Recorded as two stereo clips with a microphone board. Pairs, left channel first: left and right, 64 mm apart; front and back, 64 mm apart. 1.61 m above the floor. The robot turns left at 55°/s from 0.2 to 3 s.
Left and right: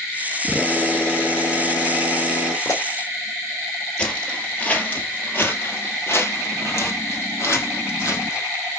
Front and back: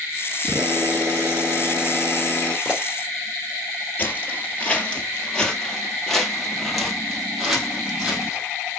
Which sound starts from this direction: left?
A pop, at 2.6 s.